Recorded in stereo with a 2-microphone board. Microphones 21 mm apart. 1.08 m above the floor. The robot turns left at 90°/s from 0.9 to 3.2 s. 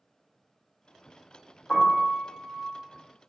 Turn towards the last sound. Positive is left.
turn(degrees=-40)